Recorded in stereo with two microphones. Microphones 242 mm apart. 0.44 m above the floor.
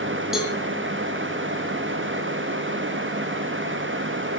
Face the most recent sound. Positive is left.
turn(degrees=0)  # may be behind; listen again after turning